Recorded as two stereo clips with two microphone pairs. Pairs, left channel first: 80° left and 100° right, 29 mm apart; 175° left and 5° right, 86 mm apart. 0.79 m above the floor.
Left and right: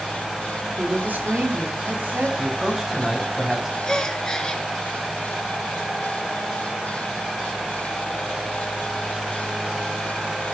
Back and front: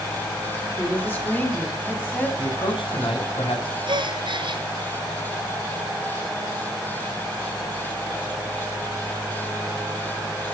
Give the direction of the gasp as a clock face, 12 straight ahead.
12 o'clock.